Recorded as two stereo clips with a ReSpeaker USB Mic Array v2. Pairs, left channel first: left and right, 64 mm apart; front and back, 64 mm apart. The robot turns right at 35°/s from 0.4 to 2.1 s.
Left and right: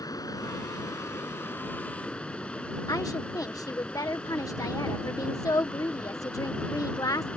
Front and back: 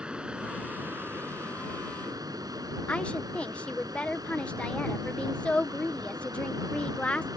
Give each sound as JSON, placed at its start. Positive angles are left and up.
{"t": 0.0, "sound": "running water", "azimuth_deg": 105}
{"t": 2.9, "sound": "a woman speaking", "azimuth_deg": 70}